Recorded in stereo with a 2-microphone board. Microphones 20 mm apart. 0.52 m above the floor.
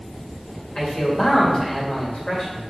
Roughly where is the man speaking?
Left.